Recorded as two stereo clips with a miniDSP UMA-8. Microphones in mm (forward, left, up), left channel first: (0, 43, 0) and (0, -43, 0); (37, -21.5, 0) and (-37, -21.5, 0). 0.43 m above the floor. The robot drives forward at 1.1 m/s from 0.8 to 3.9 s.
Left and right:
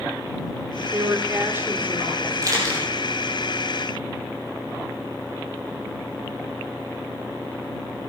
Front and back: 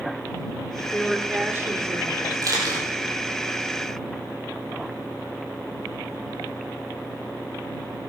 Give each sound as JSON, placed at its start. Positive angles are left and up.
{"t": 0.9, "sound": "a woman speaking", "azimuth_deg": -65, "distance_m": 1.0}
{"t": 2.4, "sound": "a camera shutter", "azimuth_deg": -140, "distance_m": 4.5}